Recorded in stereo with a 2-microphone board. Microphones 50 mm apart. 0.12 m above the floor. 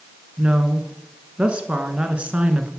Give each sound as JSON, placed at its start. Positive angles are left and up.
{"t": 0.4, "sound": "a woman speaking", "side_deg": -25, "distance_m": 1.2}